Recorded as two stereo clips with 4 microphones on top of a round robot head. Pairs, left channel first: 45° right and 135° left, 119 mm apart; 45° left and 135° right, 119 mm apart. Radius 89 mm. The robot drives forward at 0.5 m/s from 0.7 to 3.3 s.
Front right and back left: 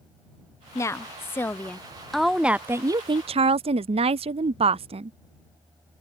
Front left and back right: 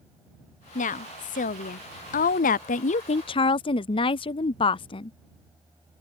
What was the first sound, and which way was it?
A woman speaking, 25° left.